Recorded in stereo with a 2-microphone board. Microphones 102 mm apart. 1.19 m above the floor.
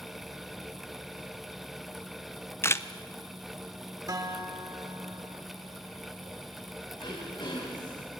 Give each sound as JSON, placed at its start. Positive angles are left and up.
{"t": 2.6, "sound": "a camera shutter", "side_deg": 25, "distance_m": 0.6}
{"t": 4.1, "sound": "a guitar", "side_deg": -40, "distance_m": 1.7}
{"t": 7.0, "sound": "throat clearing", "side_deg": 50, "distance_m": 4.0}